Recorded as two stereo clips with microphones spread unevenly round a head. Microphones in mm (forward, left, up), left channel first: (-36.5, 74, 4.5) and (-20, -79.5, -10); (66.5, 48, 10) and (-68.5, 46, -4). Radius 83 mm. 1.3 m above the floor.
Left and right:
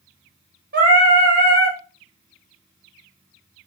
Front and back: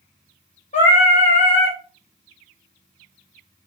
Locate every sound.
0.7 s singing: 50° right, 1.1 m